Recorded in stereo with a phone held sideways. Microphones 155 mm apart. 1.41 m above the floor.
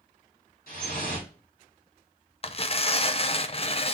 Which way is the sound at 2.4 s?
40° left (ahead or behind).